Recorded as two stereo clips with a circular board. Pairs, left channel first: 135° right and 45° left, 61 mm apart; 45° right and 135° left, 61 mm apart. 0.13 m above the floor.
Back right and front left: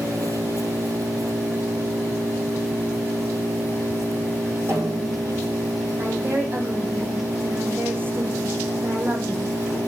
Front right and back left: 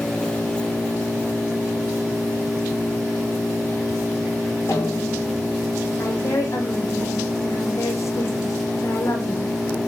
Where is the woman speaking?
10° right, 5.5 m.